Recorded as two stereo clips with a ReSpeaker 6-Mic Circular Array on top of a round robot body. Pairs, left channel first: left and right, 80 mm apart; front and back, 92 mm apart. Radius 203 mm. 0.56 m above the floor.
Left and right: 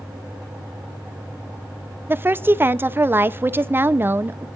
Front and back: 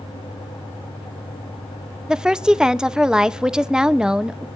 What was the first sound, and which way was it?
A woman speaking, 105° right.